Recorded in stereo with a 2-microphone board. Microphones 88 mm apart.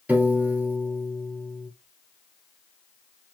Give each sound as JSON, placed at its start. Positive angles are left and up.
{"t": 0.1, "sound": "a piano", "side_deg": -20, "distance_m": 1.3}